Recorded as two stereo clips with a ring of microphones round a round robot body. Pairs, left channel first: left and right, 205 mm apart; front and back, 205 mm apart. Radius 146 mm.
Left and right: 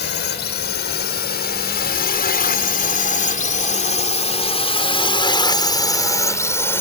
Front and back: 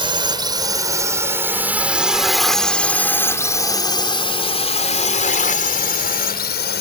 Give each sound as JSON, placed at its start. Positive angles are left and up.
{"t": 0.0, "sound": "a drone", "azimuth_deg": 120}